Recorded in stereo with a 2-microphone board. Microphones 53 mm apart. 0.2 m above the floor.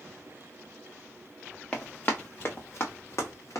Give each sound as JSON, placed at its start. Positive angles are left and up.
{"t": 1.7, "sound": "running footsteps", "side_deg": 25, "distance_m": 1.1}